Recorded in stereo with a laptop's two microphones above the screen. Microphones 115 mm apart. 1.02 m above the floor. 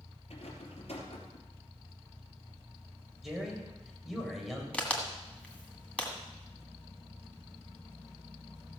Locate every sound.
0.3 s a rattle: 65° left (ahead or behind), 3 m
3.2 s a man speaking: centre (ahead or behind), 4.5 m
4.7 s a crack: 10° left (ahead or behind), 1.6 m